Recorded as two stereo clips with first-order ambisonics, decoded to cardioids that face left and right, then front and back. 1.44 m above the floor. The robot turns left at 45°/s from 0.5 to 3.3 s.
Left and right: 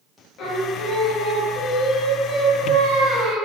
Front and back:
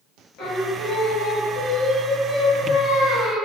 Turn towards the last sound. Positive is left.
turn(degrees=-80)